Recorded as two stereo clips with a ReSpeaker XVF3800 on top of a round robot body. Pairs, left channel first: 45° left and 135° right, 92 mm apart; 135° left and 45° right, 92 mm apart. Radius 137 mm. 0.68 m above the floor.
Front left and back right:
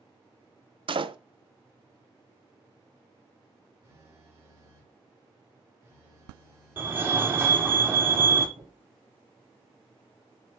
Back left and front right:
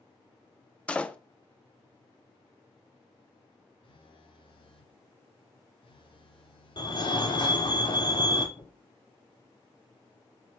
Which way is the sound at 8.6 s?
165° right.